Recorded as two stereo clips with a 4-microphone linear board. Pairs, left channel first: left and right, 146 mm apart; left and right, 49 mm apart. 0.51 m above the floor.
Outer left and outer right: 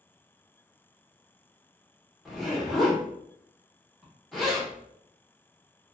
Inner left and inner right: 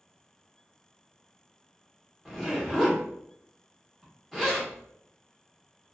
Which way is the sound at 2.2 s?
Centre (ahead or behind).